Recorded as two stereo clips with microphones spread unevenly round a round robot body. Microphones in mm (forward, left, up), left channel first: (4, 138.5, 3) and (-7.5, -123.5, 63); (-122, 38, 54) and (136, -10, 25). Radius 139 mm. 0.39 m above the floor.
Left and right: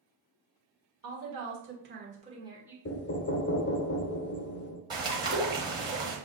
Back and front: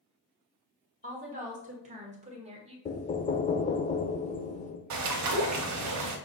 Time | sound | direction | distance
1.0 | a woman speaking | 60° right | 1.9 m
2.9 | knocking | 105° left | 0.6 m
4.9 | a bird | 15° right | 1.2 m